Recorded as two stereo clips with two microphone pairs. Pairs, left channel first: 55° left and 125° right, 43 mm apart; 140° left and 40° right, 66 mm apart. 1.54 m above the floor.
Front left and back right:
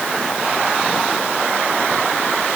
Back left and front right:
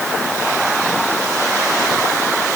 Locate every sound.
Only background noise.